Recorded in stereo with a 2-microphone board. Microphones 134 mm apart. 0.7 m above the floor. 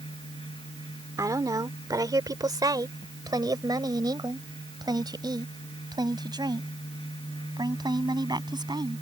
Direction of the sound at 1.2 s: 25° right (ahead or behind).